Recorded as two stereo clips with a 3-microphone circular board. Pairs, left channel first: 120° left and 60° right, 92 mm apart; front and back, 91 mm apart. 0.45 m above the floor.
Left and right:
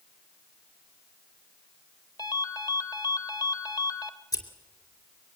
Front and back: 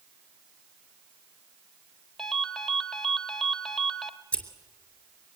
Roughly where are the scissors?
Left.